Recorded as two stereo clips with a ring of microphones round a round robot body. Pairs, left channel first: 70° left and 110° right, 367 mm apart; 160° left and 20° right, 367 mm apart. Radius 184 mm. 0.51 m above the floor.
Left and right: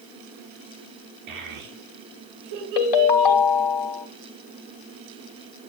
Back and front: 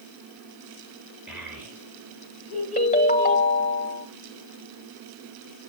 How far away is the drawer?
No drawer in this recording.